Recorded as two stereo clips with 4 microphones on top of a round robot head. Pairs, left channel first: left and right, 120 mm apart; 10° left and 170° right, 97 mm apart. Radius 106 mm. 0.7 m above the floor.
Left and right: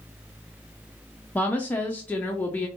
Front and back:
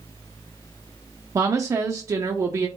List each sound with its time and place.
1.4 s a woman speaking: 155° left, 0.5 m